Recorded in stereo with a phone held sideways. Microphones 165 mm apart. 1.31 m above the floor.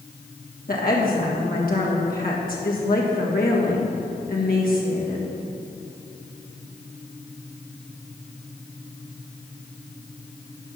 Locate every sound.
0.7 s a woman speaking: 65° left (ahead or behind), 1.8 m